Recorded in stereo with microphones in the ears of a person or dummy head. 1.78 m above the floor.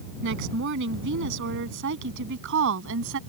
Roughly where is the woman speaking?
Right.